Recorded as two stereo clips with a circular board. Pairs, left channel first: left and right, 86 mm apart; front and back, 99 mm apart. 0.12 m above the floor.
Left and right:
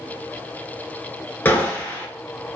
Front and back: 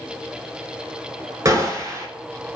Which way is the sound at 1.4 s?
150° left.